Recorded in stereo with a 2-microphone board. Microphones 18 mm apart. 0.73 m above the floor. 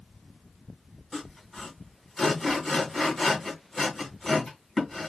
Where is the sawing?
15° left (ahead or behind), 2 m.